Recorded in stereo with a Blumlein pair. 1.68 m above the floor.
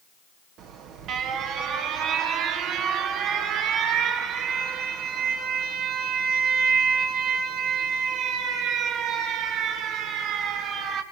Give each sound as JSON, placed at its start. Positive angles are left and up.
{"t": 0.6, "sound": "an alarm", "azimuth_deg": -35, "distance_m": 2.5}